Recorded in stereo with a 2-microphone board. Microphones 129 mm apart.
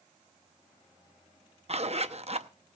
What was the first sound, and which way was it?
A zipper, 50° right (ahead or behind).